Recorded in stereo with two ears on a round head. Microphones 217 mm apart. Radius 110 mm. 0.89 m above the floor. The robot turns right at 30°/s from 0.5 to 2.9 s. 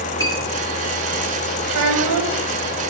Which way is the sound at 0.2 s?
15° left (ahead or behind).